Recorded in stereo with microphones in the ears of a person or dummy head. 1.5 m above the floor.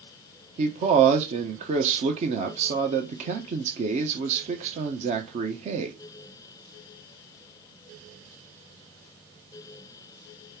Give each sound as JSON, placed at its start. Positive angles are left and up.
{"t": 0.6, "sound": "a man speaking", "side_deg": -45, "distance_m": 1.0}